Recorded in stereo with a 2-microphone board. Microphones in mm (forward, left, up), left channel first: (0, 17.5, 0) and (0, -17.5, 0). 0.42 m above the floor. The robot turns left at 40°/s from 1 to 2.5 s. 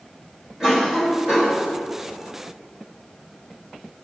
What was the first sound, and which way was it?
A cough, 15° right (ahead or behind).